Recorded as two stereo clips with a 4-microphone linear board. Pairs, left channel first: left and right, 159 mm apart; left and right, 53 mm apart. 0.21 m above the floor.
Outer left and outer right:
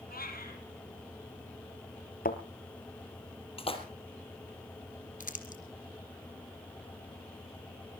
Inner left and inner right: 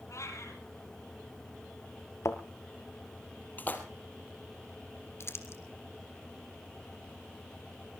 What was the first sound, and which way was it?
A cat meowing, 70° left (ahead or behind).